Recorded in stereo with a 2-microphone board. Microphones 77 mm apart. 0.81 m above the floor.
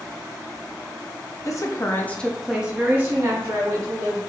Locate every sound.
1.4 s a woman speaking: 45° left (ahead or behind), 0.7 m; by 4.2 s 40° right (ahead or behind), 1.4 m